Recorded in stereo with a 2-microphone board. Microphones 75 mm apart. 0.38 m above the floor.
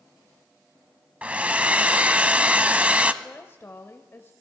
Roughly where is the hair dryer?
Centre.